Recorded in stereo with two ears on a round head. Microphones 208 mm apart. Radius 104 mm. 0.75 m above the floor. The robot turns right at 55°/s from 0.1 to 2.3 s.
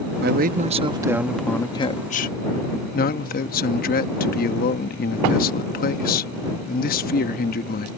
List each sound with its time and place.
0.2 s a man speaking: 65° right; by 7.9 s 50° left